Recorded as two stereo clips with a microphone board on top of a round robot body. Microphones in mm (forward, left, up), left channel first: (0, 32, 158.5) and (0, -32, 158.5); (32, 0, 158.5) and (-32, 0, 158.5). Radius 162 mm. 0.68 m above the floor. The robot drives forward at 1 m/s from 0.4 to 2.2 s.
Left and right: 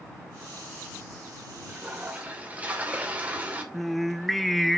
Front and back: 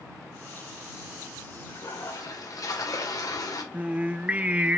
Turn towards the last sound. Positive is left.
turn(degrees=175)